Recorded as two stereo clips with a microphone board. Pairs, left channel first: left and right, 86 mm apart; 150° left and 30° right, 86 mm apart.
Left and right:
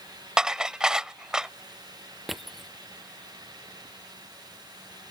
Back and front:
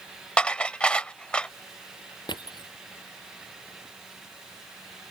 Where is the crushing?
Straight behind.